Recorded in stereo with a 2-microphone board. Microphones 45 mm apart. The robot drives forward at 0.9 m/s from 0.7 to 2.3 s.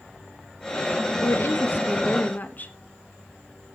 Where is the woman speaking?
65° left (ahead or behind), 1.3 m; by 2.7 s 40° left (ahead or behind), 1.9 m.